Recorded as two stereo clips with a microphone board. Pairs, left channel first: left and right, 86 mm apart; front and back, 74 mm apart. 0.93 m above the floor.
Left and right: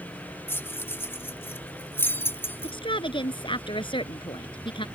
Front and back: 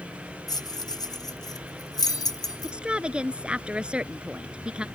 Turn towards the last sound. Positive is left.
turn(degrees=105)